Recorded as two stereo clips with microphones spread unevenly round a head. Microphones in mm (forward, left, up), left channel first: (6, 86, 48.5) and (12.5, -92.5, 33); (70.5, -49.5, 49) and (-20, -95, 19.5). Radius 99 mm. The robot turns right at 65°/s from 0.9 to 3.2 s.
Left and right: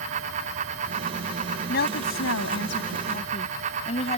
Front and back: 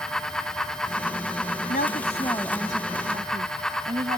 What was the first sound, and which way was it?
A woman speaking, 50° left.